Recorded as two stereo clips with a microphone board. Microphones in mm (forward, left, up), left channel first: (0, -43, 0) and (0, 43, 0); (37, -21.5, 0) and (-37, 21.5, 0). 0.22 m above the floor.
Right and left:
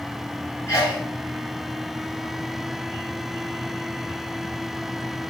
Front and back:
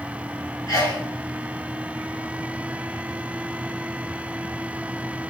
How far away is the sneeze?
About 1.5 m.